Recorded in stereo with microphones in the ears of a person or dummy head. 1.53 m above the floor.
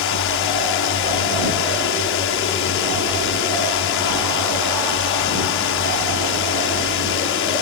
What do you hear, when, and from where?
0.0 s a drone: 55° left (ahead or behind)